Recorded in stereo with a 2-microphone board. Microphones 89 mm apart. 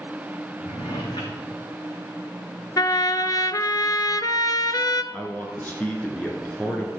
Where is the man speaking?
20° left (ahead or behind), 1.7 m.